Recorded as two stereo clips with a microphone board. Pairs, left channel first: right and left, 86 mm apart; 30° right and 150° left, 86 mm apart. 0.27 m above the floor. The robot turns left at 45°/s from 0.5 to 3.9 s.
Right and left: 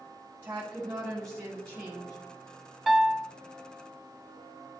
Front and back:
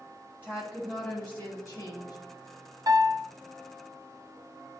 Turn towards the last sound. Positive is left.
turn(degrees=130)